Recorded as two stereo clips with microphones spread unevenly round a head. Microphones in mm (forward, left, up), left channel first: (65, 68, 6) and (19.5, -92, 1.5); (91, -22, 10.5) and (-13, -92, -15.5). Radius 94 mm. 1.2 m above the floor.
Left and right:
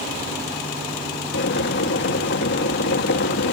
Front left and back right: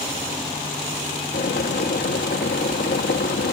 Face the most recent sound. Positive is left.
turn(degrees=60)